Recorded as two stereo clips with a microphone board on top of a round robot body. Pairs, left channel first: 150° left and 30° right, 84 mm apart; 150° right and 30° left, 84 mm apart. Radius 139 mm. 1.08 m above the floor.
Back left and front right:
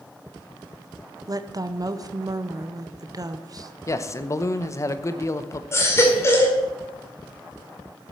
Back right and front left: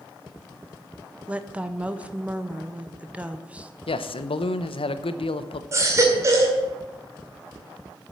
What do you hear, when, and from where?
1.3 s a woman speaking: 40° right, 0.9 m
3.9 s a man speaking: 155° right, 0.8 m
5.7 s a baby crying: 90° left, 2 m